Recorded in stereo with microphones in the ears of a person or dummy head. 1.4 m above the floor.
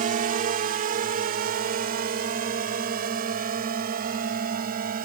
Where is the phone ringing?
I don't hear a phone ringing.